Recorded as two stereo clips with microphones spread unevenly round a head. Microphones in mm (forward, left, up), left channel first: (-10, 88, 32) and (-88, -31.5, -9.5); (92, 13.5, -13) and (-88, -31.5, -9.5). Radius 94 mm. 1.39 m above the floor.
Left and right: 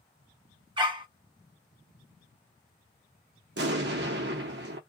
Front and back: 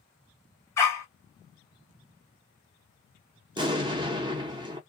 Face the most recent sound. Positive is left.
turn(degrees=-100)